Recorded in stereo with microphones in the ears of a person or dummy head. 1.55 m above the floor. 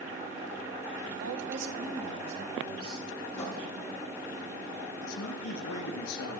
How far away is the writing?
About 6 m.